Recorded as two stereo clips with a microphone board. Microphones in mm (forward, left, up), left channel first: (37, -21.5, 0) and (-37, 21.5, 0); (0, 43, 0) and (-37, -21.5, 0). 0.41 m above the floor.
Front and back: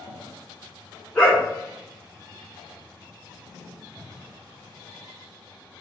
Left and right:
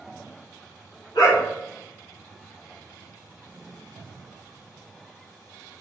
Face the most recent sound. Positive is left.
turn(degrees=45)